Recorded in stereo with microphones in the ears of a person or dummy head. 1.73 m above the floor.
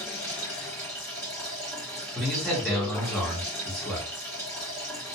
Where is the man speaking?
10° left (ahead or behind), 0.9 m.